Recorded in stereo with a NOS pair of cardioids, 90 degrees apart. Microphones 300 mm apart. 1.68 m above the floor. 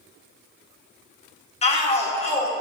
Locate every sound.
1.6 s a shout: 20° left, 1.6 m